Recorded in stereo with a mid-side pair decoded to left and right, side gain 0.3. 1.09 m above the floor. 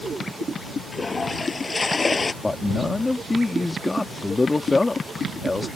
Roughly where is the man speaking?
Ahead left.